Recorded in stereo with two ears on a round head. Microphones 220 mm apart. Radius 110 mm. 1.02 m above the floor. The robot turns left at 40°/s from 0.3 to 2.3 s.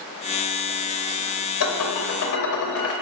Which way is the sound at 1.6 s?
65° left (ahead or behind).